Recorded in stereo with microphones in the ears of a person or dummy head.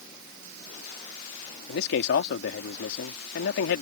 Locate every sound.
1.7 s a man speaking: 70° left (ahead or behind)